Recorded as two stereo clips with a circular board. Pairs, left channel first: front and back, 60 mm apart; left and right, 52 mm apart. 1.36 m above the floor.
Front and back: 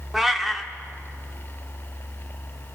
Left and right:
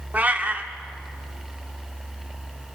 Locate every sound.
0.1 s a cat meowing: 100° right, 1.1 m